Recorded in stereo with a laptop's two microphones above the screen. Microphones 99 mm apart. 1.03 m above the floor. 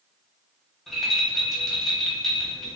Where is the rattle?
Centre (ahead or behind), 1.4 m.